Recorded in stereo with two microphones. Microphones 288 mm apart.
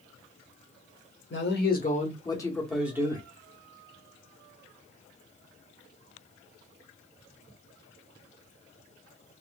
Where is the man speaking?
40° left (ahead or behind), 1.1 m; by 3.2 s 15° right (ahead or behind), 1.0 m.